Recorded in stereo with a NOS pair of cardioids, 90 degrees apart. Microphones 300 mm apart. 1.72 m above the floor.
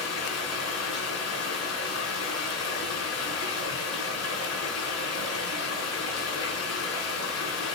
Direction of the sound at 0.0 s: 60° left.